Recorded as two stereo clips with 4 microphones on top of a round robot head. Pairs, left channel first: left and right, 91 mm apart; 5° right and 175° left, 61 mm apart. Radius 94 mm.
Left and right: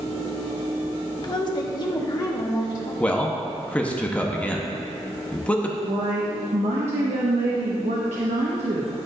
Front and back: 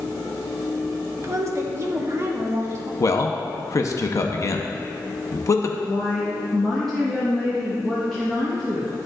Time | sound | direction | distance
1.2 | a woman speaking | 135° left | 1.0 m
3.0 | a man speaking | 15° left | 0.8 m
5.8 | a woman speaking | 90° right | 1.1 m